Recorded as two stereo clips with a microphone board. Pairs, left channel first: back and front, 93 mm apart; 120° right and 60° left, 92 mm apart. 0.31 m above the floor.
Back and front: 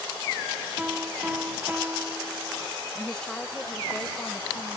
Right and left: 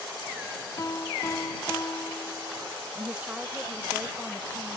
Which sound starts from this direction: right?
A piano, at 0.8 s.